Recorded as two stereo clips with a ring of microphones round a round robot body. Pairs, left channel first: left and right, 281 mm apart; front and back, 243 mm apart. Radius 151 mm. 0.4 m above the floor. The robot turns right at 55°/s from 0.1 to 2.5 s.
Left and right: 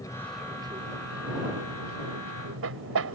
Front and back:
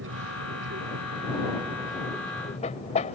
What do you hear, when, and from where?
0.0 s an aircraft: 165° left; by 3.2 s 60° right